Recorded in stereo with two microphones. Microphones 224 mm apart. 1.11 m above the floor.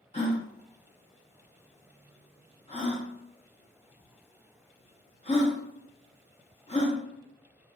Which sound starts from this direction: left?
A gasp, at 0.1 s.